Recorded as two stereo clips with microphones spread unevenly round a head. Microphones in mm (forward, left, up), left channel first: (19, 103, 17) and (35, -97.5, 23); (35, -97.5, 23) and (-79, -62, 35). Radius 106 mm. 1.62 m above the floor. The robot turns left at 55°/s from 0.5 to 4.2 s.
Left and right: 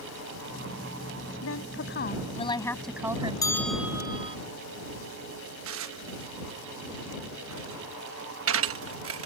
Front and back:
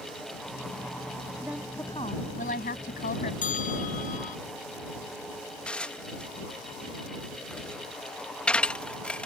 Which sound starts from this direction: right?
Dishes clattering, at 5.7 s.